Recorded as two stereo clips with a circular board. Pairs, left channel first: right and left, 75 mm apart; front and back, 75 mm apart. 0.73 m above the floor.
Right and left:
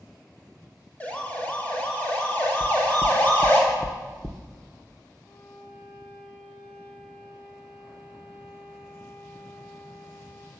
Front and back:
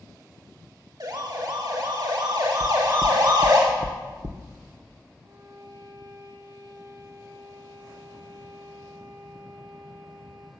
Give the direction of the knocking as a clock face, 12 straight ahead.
5 o'clock.